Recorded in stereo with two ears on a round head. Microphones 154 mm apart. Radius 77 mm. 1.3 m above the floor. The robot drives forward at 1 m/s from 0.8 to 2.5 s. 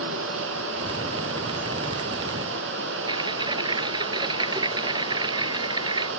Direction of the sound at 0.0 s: 85° right.